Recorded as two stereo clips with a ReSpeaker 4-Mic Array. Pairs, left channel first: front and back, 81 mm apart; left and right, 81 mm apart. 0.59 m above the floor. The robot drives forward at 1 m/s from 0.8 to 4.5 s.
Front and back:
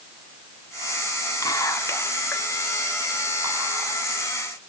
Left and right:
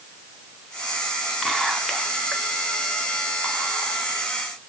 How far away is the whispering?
About 1.4 m.